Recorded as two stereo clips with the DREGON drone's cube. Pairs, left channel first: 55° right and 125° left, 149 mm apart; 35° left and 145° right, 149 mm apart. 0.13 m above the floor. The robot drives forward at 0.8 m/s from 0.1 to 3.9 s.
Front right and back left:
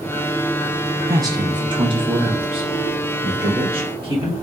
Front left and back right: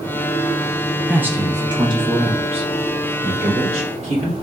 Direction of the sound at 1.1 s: 140° left.